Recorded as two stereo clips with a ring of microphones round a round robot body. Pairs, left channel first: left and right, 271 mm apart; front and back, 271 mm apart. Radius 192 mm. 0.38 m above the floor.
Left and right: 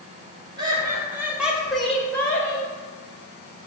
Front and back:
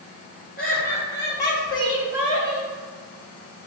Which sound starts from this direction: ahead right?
Laughter, at 0.6 s.